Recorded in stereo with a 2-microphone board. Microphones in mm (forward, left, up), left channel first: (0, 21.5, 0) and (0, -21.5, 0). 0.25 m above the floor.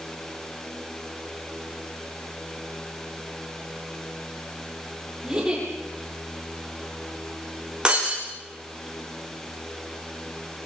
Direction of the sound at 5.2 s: 15° right (ahead or behind).